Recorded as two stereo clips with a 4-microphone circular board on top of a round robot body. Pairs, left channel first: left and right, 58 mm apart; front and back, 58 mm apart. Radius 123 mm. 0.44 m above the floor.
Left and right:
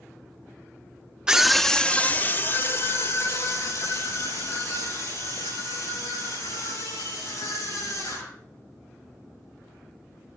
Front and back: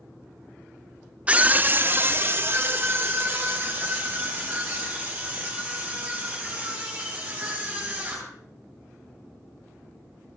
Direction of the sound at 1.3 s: 150° right.